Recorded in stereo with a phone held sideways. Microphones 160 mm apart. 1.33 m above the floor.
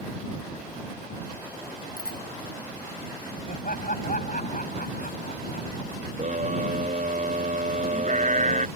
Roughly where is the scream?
Right.